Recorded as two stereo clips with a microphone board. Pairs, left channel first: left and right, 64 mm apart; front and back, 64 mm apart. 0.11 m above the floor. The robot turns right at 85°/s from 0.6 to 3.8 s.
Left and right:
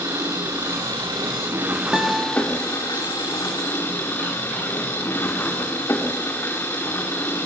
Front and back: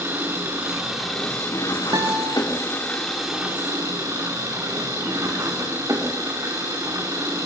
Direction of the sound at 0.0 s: 130° right.